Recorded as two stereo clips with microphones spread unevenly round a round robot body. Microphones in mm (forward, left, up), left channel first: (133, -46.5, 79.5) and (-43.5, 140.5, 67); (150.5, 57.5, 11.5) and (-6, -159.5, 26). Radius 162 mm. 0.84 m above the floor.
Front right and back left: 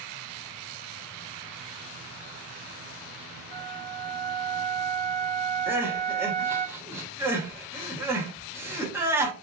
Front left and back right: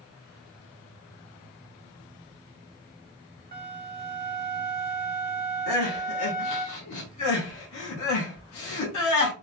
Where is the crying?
55° left, 1.1 m.